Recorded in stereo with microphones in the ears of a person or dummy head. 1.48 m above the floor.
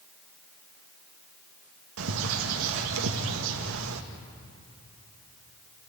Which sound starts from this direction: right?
A bird, at 2.0 s.